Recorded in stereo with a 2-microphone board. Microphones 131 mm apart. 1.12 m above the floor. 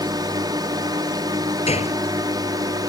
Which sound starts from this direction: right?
A drone, at 0.0 s.